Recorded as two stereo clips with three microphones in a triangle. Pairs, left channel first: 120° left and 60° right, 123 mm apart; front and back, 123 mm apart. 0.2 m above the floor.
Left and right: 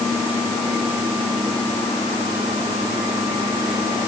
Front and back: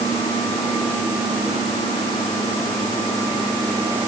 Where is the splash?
I don't hear a splash.